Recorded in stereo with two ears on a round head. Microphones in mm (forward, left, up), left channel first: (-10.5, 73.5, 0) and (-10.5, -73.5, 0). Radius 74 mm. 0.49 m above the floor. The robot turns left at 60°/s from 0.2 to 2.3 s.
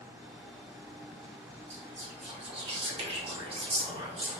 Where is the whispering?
85° right, 1.1 m; by 4.4 s 120° right, 1.1 m.